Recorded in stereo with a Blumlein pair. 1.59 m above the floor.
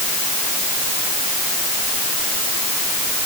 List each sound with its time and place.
Only background noise.